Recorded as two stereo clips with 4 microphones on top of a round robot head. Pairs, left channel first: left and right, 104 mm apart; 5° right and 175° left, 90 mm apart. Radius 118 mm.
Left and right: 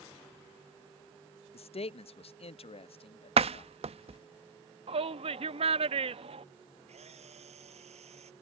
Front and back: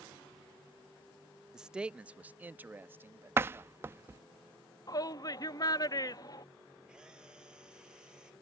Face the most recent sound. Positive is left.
turn(degrees=-100)